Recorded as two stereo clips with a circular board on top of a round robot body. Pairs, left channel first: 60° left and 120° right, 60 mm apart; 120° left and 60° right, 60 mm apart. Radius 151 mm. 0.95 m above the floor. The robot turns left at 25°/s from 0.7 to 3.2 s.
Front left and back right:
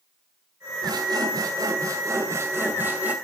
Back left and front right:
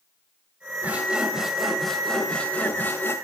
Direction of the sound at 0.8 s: 125° right.